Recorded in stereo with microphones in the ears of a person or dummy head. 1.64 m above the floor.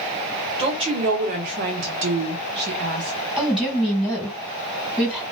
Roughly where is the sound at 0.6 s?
Right.